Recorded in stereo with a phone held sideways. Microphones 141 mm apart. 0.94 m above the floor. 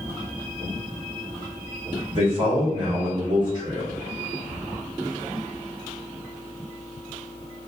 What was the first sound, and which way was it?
A man speaking, 35° right (ahead or behind).